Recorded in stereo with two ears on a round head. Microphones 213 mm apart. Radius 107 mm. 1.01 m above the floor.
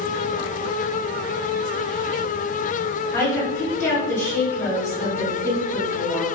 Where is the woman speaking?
10° left (ahead or behind), 1.7 m.